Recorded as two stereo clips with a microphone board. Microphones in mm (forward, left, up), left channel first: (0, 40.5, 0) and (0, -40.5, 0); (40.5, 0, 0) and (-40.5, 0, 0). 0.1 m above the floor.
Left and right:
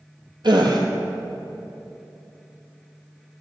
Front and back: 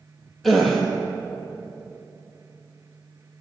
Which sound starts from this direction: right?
A gasp, at 0.4 s.